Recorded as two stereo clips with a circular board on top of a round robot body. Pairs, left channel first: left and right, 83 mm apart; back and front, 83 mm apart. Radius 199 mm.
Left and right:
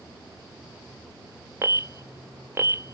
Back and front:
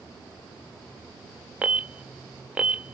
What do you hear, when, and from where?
1.6 s an alarm: 65° right, 0.5 m